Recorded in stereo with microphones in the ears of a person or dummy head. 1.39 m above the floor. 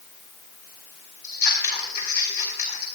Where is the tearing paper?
I don't hear tearing paper.